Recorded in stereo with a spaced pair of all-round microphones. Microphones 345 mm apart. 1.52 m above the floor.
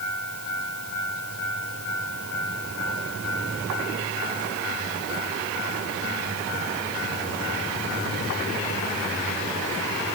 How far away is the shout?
No shout in this recording.